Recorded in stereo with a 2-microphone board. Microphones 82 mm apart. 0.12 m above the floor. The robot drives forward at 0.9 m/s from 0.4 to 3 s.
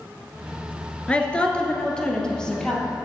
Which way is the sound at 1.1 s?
15° left (ahead or behind).